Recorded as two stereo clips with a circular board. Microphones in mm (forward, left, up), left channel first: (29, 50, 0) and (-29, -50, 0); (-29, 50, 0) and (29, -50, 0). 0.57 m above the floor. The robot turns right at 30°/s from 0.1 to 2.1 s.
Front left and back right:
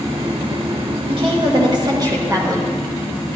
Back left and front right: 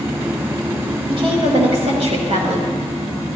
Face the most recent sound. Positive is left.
turn(degrees=-65)